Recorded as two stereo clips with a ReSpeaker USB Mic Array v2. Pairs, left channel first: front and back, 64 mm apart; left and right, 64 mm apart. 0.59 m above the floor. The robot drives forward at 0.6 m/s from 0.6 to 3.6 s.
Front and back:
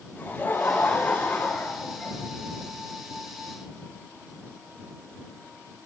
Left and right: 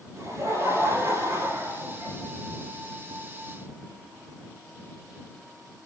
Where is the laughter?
60° right, 5 m; by 2.1 s 70° right, 4.5 m.